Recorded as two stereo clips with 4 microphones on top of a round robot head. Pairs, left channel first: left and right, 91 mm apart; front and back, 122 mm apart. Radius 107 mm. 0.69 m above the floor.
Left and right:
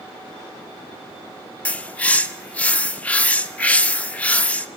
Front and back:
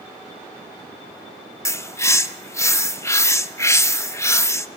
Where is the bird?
35° left, 1.1 m.